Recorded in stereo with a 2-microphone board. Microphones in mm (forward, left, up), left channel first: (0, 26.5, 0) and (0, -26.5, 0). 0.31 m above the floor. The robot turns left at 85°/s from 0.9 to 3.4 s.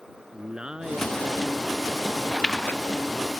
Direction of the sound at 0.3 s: 20° right.